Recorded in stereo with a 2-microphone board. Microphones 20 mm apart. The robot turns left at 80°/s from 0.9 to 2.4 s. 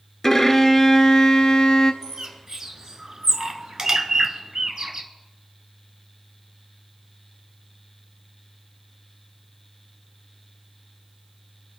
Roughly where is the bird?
Right.